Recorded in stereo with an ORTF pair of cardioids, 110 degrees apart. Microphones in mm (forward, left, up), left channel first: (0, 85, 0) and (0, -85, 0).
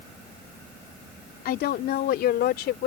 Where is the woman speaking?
65° left; by 2.9 s 70° left.